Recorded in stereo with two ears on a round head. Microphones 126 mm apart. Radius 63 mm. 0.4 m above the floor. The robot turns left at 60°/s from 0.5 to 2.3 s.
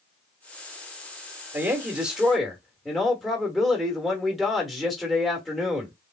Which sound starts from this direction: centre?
A woman speaking, at 1.5 s.